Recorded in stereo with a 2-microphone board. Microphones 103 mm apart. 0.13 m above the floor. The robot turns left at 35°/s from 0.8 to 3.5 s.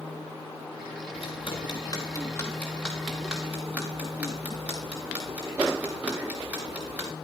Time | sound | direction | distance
1.1 | ticking | 70° left (ahead or behind) | 5 m